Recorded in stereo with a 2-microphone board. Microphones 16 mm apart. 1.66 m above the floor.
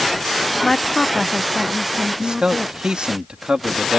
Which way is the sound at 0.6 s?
25° left (ahead or behind).